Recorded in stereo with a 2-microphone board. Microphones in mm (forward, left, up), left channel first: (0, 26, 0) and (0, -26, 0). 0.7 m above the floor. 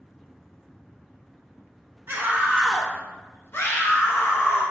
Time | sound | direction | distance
2.1 | a scream | 45° right (ahead or behind) | 0.7 m